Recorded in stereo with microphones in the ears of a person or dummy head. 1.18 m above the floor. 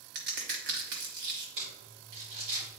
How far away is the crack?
About 1.3 m.